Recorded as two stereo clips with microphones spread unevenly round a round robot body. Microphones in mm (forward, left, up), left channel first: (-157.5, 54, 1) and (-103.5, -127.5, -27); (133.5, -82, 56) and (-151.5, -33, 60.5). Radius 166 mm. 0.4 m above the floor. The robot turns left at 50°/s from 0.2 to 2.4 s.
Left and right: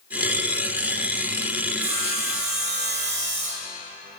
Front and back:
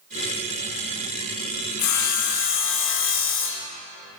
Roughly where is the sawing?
Ahead right.